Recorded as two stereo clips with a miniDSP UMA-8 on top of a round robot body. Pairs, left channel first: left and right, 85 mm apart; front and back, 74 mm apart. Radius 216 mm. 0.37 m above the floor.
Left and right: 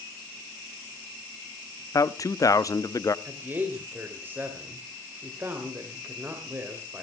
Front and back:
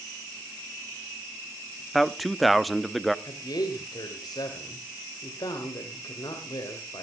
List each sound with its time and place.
1.9 s a man speaking: 90° left, 1.0 m
3.2 s a man speaking: 25° right, 2.5 m